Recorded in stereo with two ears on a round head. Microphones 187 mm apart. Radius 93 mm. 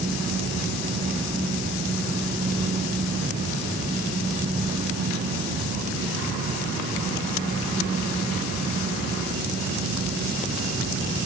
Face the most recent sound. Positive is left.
No sound to turn to.